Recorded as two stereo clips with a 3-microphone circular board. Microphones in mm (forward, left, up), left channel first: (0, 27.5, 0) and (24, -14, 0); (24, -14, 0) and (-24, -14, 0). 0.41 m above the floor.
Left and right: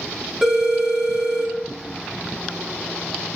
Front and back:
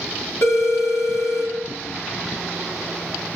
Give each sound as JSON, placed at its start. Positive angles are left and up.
{"t": 0.4, "sound": "a phone ringing", "azimuth_deg": 20, "distance_m": 1.3}